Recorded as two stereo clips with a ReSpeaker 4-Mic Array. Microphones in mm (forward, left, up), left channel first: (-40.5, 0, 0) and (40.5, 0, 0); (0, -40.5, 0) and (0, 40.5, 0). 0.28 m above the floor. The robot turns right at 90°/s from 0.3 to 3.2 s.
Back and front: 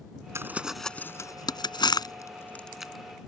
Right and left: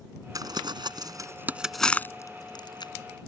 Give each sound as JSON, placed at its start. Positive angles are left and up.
{"t": 0.3, "sound": "crumpling", "azimuth_deg": 55}